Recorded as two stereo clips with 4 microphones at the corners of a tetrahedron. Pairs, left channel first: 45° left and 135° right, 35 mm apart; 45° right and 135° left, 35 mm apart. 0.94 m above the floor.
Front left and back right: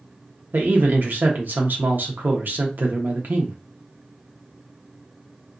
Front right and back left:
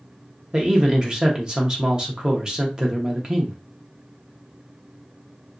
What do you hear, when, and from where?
0.5 s a man speaking: 160° right, 0.8 m